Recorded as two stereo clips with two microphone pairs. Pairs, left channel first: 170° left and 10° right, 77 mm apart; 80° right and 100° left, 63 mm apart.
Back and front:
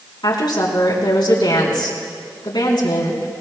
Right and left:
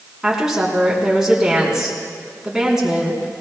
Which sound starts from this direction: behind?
A woman speaking, at 0.2 s.